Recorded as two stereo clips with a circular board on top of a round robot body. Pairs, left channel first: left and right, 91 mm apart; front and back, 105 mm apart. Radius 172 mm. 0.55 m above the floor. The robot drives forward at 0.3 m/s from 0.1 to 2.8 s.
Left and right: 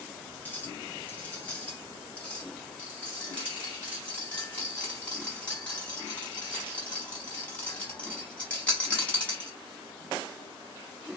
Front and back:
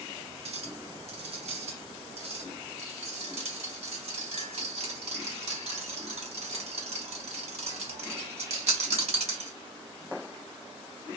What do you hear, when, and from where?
0.5 s a clink: 160° left, 2.5 m; by 9.5 s 165° left, 3 m